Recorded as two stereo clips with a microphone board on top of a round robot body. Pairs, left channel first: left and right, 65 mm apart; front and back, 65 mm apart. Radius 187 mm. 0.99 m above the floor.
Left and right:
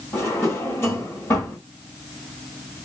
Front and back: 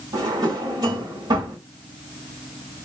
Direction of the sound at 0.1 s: 150° left.